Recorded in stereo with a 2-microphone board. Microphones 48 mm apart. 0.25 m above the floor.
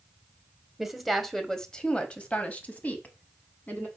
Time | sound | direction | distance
0.8 | a woman speaking | 5° right (ahead or behind) | 0.9 m